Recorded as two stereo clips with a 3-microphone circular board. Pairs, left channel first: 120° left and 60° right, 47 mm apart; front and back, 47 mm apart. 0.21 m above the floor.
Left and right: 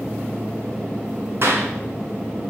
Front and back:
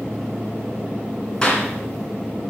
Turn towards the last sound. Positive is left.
turn(degrees=-70)